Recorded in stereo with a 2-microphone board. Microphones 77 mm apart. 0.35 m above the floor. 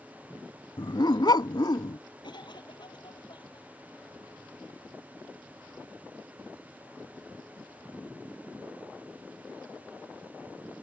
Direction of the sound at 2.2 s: 70° left (ahead or behind).